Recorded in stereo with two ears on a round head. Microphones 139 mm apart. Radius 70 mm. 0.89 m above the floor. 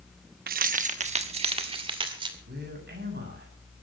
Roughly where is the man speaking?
Right.